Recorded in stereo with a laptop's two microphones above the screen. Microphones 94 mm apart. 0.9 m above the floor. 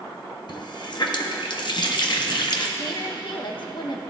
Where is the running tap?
55° left (ahead or behind), 0.7 m.